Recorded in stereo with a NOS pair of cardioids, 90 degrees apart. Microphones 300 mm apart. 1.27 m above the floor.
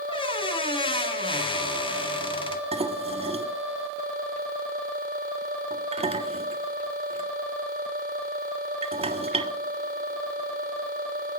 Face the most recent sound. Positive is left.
turn(degrees=-20)